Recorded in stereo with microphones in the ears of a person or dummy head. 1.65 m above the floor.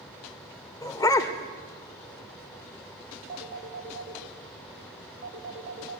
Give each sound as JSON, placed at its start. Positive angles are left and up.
{"t": 0.8, "sound": "a dog barking", "side_deg": 20, "distance_m": 1.8}
{"t": 3.3, "sound": "a phone ringing", "side_deg": -50, "distance_m": 2.0}